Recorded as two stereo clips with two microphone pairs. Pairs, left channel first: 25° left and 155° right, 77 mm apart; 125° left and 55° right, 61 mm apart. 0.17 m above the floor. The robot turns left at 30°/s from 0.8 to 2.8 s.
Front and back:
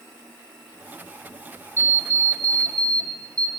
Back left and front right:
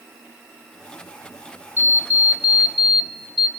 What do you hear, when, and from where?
1.8 s an alarm clock: 110° right, 1.6 m; by 3.5 s 140° right, 1.6 m